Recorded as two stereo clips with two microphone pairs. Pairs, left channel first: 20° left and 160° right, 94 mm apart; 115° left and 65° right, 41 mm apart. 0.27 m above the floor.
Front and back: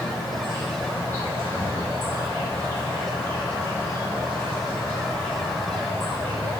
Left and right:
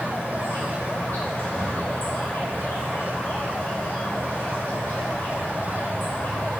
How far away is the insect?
About 2.0 m.